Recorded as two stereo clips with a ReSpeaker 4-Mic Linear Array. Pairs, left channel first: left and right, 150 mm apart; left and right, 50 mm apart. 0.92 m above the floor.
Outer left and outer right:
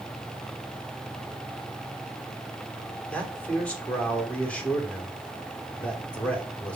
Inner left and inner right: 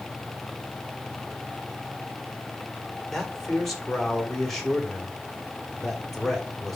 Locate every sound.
3.1 s a man speaking: 10° left (ahead or behind), 2.5 m